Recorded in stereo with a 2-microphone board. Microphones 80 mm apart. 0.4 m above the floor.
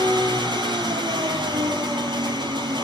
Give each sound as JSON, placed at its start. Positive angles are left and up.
{"t": 0.0, "sound": "an engine running", "side_deg": -70, "distance_m": 6.5}